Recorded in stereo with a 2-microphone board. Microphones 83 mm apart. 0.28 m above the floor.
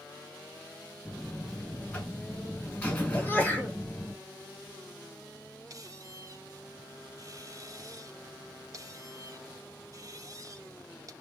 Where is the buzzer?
20° left (ahead or behind), 1.9 m.